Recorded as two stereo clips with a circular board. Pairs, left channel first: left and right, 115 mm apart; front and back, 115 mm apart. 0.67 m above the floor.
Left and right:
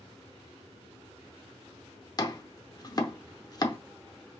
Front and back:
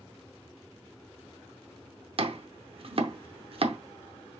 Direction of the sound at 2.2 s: 145° left.